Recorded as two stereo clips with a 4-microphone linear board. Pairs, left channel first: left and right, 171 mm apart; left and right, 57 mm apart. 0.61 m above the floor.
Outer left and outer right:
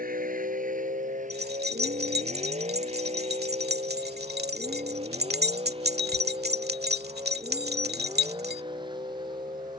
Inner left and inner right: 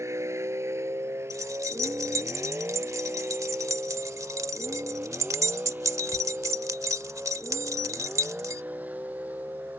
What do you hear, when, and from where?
0.0 s a vehicle: 55° right (ahead or behind); by 9.8 s 25° right (ahead or behind)
1.3 s keys jangling: 70° right (ahead or behind)